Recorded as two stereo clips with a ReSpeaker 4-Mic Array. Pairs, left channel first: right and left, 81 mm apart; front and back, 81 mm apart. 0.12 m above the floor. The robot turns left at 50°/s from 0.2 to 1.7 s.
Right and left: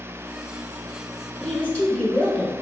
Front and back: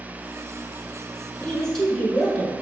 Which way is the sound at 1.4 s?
50° right.